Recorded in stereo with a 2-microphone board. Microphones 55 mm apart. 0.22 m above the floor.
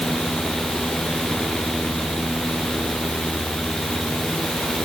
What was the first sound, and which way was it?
Only background noise.